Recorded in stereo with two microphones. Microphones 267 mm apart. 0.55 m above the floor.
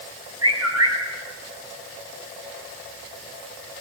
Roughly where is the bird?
Right.